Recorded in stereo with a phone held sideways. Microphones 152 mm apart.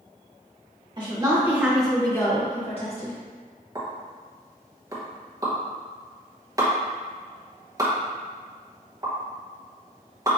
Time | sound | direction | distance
1.0 | a woman speaking | 30° right (ahead or behind) | 1.6 m
3.8 | a pop | 25° right (ahead or behind) | 0.9 m